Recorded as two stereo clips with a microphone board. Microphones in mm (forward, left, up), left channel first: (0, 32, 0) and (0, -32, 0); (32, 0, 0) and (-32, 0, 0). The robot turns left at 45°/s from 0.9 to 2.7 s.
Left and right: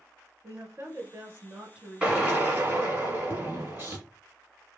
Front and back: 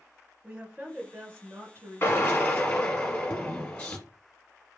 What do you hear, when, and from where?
0.4 s a woman speaking: 115° right, 2 m; by 3.0 s 165° left, 2 m
2.0 s a drill: 25° right, 1.2 m; by 4.0 s 55° right, 1.2 m